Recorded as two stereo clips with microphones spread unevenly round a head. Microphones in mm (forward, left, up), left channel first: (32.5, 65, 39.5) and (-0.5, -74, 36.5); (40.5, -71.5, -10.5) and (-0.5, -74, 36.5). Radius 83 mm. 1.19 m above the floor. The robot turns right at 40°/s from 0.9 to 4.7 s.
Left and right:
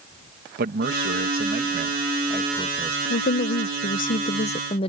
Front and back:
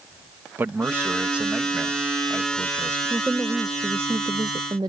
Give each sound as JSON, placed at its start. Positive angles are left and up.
{"t": 0.6, "sound": "a man speaking", "azimuth_deg": -115}
{"t": 3.1, "sound": "a woman speaking", "azimuth_deg": 65}